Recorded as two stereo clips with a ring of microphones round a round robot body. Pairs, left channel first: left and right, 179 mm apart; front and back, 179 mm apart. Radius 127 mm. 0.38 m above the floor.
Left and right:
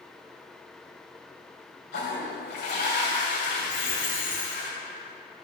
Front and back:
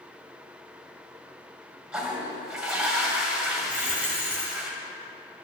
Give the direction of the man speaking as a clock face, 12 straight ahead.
I don't hear a man speaking.